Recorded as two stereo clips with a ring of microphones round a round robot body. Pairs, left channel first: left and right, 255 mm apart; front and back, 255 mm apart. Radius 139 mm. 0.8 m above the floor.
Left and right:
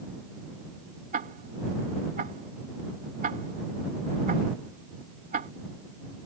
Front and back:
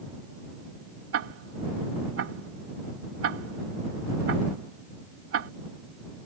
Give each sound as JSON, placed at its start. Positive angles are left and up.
{"t": 1.1, "sound": "ticking", "azimuth_deg": -150}